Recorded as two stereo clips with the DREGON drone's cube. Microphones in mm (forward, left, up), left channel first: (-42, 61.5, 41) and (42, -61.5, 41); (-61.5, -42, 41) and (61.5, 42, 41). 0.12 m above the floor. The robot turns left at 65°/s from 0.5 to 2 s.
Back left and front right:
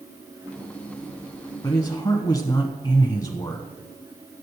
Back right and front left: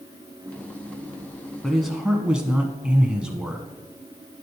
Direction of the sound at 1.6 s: 135° left.